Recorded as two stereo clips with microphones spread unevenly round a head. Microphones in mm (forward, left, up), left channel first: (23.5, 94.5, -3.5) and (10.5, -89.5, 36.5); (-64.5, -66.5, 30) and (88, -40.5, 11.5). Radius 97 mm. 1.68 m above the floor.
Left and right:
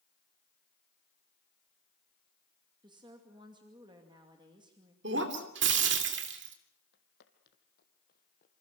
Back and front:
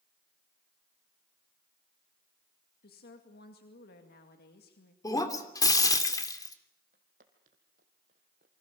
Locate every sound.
2.8 s a woman speaking: 160° right, 2.5 m
5.0 s breaking glass: 105° right, 3 m
6.9 s footsteps: 55° left, 3 m; by 8.6 s 40° left, 2.5 m